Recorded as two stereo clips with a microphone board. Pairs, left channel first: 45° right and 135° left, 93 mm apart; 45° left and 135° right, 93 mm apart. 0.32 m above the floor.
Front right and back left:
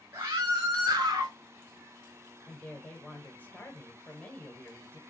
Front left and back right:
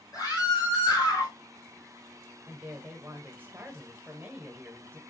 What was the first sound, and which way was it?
A scream, 75° left.